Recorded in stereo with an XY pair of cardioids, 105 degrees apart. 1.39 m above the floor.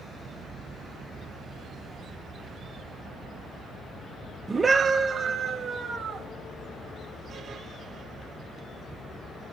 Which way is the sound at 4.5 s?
20° right.